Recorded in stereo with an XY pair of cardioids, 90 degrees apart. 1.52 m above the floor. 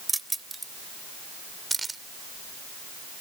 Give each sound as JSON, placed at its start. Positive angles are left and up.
{"t": 0.1, "sound": "keys jangling", "azimuth_deg": -15}